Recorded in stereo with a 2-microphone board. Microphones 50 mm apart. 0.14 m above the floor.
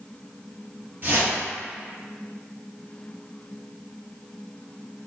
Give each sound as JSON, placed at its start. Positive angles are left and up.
{"t": 1.0, "sound": "a whoosh", "side_deg": -45, "distance_m": 1.9}